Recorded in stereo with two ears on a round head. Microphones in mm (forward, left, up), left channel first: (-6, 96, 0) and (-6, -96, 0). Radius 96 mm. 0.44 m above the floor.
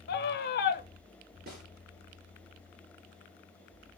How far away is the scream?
About 1.2 m.